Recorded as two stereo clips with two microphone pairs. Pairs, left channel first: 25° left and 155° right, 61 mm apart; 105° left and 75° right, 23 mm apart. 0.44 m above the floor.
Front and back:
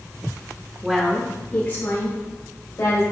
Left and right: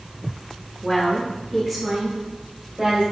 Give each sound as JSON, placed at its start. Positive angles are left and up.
{"t": 0.8, "sound": "a woman speaking", "azimuth_deg": 130, "distance_m": 0.9}